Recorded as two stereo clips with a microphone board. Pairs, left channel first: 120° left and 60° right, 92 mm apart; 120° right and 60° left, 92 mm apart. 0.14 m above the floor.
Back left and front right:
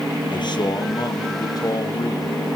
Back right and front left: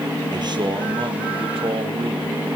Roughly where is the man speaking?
Left.